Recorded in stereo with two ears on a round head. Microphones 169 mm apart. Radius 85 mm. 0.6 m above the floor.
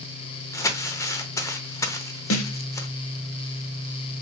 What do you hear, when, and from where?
0.5 s crumpling: 15° left (ahead or behind), 0.7 m
2.3 s a snare drum: 85° left, 0.9 m